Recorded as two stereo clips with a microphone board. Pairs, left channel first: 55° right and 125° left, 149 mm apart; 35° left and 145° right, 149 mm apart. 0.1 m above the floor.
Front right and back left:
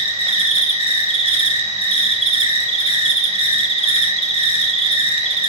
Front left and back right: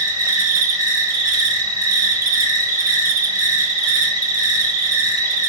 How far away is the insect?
About 1.7 m.